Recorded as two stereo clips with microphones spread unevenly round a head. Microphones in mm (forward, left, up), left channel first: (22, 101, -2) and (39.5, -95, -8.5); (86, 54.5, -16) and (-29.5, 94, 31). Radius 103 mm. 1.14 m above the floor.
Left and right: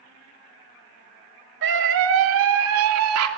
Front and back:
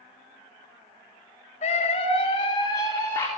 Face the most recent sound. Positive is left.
turn(degrees=-95)